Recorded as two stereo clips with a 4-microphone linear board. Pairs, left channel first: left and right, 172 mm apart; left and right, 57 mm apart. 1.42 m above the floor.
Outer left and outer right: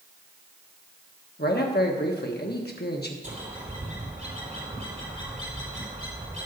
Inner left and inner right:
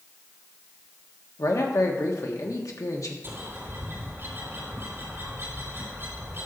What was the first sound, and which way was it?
A man speaking, 65° left (ahead or behind).